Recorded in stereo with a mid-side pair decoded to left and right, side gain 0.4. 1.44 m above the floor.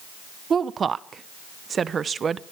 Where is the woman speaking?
45° right, 0.8 m.